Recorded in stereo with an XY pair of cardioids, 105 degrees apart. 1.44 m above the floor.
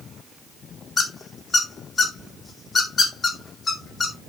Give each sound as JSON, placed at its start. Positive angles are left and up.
{"t": 1.0, "sound": "a squeak", "azimuth_deg": 40, "distance_m": 2.0}